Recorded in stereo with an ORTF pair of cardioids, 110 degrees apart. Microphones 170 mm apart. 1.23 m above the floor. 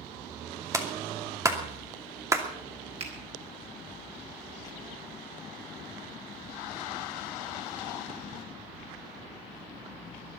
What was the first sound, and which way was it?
A clap, 20° right.